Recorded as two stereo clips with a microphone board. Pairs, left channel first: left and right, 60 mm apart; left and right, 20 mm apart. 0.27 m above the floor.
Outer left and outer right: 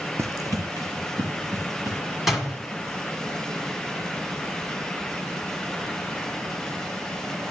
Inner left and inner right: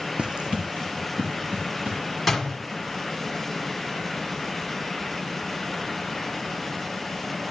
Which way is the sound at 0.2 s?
55° right (ahead or behind).